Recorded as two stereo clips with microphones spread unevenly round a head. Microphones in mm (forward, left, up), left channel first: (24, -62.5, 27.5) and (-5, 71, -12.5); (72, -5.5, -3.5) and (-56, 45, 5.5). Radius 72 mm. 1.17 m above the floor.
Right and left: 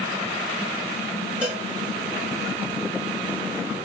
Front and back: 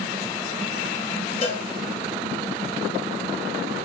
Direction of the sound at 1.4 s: 25° left.